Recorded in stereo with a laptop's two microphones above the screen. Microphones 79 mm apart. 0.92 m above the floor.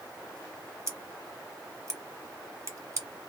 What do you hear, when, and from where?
0.9 s scissors: 40° right (ahead or behind), 0.9 m